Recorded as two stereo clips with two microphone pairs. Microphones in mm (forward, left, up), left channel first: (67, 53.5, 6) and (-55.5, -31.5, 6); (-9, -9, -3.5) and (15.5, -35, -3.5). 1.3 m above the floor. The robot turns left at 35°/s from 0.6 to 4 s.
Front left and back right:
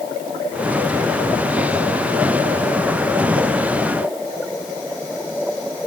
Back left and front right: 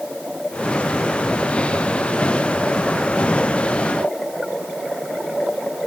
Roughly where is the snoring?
I don't hear snoring.